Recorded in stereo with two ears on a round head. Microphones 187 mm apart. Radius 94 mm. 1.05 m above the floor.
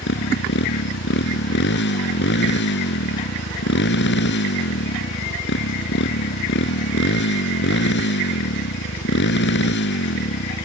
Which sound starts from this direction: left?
A motorcycle, at 0.0 s.